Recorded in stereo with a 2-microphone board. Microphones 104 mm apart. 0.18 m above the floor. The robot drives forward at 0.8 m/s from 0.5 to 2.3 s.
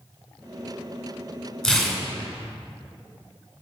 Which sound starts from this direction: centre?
Tearing paper, at 1.6 s.